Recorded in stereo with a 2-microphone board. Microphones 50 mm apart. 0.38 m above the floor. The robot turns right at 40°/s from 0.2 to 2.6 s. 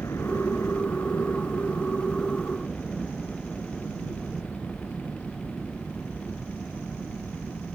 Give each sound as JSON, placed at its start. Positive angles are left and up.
{"t": 0.0, "sound": "a helicopter", "azimuth_deg": 70}